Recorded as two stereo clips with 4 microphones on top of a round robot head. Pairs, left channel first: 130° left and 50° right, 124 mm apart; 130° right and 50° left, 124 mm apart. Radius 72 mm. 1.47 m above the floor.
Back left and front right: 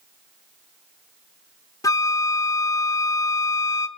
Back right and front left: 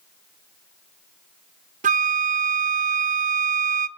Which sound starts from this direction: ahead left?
A flute, at 1.8 s.